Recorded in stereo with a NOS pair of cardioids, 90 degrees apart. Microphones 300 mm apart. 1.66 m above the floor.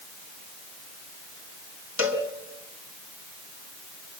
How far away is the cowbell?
About 4.5 m.